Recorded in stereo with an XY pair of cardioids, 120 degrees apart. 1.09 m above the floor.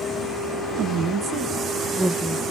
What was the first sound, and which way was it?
A woman speaking, 65° right.